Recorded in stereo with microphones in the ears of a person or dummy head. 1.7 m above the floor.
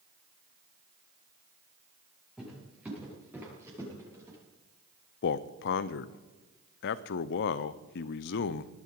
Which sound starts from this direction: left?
A man speaking, at 5.2 s.